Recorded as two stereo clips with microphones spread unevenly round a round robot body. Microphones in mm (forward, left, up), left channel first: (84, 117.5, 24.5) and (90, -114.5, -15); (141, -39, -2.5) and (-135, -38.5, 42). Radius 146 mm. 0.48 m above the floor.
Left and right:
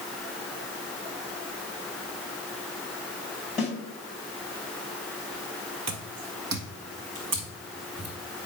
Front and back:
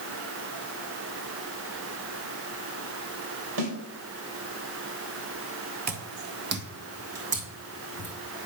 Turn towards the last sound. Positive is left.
turn(degrees=-130)